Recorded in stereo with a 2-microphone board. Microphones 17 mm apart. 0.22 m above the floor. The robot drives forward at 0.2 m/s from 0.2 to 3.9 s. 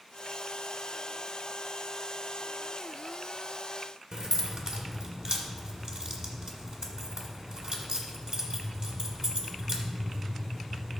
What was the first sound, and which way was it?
Keys jangling, 55° right (ahead or behind).